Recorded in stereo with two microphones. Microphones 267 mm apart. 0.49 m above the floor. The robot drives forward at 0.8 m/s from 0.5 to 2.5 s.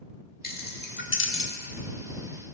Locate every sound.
0.4 s keys jangling: 35° left (ahead or behind), 1.3 m; by 1.5 s 50° left (ahead or behind), 0.9 m